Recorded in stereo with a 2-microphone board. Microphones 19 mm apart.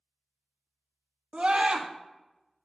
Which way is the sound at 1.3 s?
60° right (ahead or behind).